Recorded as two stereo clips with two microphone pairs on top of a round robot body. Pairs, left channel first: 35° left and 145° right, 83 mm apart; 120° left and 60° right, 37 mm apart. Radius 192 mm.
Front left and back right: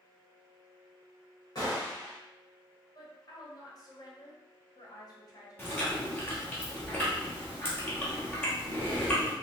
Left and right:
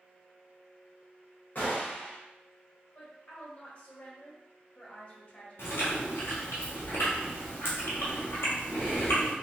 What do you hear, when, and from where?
1.6 s a gunshot: 80° left, 0.5 m
3.0 s a woman speaking: 60° left, 1.3 m
5.6 s chewing: 105° left, 1.0 m